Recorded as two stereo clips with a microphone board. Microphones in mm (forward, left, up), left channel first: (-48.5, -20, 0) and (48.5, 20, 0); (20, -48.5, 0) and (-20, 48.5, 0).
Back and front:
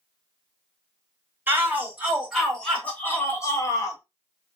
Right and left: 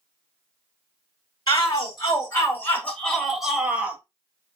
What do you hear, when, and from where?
1.5 s a shout: 45° right, 1.2 m; by 4.0 s straight behind, 1.1 m